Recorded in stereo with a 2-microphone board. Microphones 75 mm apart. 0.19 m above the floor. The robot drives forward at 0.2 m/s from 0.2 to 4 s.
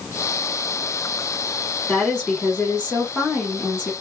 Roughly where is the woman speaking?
Centre.